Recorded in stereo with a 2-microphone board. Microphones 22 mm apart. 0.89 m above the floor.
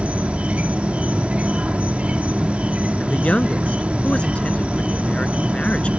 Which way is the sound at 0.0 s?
70° right (ahead or behind).